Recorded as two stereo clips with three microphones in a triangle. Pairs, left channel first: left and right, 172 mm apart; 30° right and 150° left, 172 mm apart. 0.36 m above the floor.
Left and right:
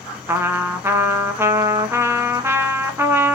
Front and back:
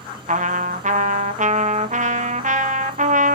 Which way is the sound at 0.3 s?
165° right.